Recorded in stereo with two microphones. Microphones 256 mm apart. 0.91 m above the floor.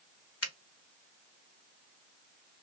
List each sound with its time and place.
0.4 s a finger snap: 60° left (ahead or behind), 0.9 m